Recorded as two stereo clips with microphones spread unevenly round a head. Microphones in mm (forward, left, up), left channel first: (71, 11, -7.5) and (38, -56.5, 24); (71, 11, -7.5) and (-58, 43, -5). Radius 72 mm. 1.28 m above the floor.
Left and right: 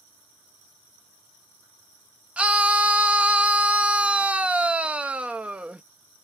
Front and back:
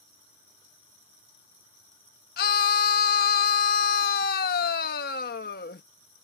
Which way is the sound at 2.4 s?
45° right.